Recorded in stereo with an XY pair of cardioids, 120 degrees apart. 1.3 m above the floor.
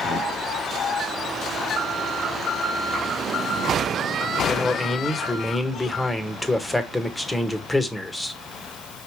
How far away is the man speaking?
About 1.4 m.